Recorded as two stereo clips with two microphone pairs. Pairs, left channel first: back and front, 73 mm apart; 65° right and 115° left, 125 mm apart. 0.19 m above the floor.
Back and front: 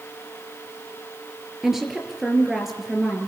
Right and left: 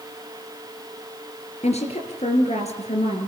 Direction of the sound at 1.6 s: 85° right.